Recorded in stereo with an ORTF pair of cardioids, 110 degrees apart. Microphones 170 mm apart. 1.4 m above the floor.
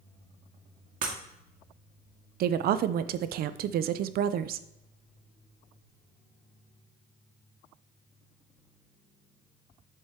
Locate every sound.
1.0 s breaking glass: 55° right, 1.8 m
2.4 s a woman speaking: 65° right, 0.6 m